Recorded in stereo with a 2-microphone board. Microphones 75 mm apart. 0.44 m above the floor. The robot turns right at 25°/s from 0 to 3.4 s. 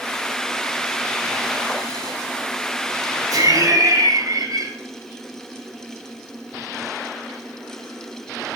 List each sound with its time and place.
3.3 s laughter: 60° right (ahead or behind), 2 m